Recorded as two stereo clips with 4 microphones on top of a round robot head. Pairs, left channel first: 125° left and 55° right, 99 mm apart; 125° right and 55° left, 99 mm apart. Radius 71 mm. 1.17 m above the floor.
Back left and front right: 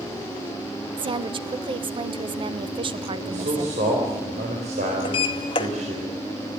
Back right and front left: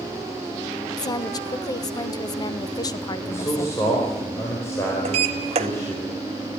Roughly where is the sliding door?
Left.